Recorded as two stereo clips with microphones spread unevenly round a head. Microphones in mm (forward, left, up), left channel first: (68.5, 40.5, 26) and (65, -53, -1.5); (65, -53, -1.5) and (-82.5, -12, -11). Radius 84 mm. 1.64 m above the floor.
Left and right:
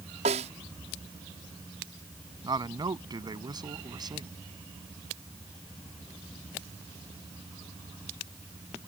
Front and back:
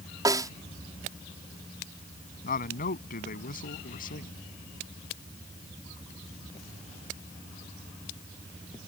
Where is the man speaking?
45° right.